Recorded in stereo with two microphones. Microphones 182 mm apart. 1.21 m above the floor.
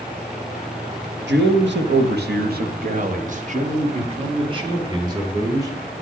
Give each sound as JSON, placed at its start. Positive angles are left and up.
{"t": 1.3, "sound": "a man speaking", "side_deg": -85, "distance_m": 1.4}